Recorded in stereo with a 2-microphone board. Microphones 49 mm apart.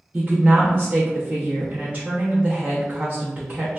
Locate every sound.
0.1 s a woman speaking: 35° right (ahead or behind), 0.6 m